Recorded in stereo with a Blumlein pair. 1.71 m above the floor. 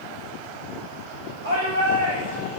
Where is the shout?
60° right, 7 m.